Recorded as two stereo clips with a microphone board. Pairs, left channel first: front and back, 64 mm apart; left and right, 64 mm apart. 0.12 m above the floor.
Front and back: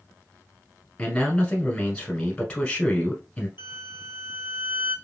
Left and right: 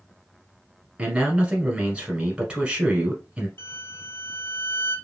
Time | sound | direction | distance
1.0 | a man speaking | 45° right | 1.1 m
3.6 | a violin | 135° left | 0.8 m